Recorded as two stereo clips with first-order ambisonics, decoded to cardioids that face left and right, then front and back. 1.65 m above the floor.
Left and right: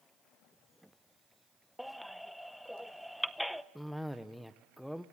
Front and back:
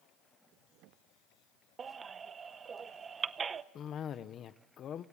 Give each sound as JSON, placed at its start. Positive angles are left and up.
{"t": 1.8, "sound": "a baby crying", "azimuth_deg": 175, "distance_m": 0.7}
{"t": 3.8, "sound": "a cough", "azimuth_deg": 5, "distance_m": 0.6}